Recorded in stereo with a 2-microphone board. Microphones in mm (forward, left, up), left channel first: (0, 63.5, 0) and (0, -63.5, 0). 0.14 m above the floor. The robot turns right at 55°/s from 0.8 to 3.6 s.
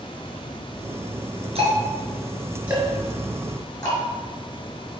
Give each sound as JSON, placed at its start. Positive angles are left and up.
{"t": 1.6, "sound": "ticking", "side_deg": -55, "distance_m": 2.5}